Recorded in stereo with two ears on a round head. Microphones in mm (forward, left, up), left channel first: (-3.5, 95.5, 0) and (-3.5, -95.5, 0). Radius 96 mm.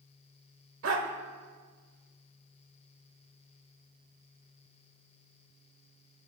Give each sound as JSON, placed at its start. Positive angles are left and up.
{"t": 0.8, "sound": "a dog barking", "side_deg": -70, "distance_m": 1.6}